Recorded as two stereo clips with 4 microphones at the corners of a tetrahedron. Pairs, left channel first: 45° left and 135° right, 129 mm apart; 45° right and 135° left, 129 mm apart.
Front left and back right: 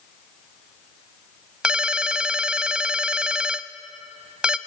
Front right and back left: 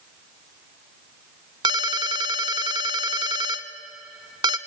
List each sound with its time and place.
1.6 s a ringtone: 145° left, 0.8 m